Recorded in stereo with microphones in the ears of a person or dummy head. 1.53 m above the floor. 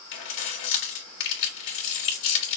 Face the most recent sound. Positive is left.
turn(degrees=60)  # may be behind; listen again after turning